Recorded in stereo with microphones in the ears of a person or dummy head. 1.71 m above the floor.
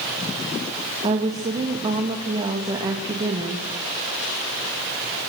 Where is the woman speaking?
25° right (ahead or behind), 2 m.